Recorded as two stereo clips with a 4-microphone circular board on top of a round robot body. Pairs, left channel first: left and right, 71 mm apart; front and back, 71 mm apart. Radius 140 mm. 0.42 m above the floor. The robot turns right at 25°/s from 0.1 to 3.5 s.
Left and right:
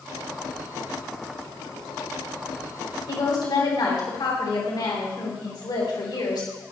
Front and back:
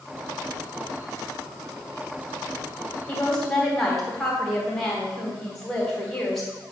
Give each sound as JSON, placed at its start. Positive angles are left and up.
{"t": 3.1, "sound": "a woman speaking", "azimuth_deg": 75, "distance_m": 3.0}